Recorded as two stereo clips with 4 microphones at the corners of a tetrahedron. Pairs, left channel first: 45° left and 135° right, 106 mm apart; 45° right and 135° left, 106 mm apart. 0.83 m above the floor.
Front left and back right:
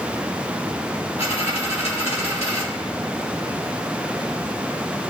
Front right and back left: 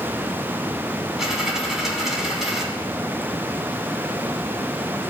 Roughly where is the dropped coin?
Ahead left.